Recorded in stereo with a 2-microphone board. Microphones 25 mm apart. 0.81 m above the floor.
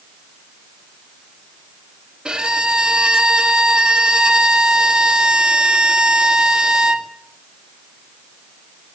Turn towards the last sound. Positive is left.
turn(degrees=-35)  # may be behind; listen again after turning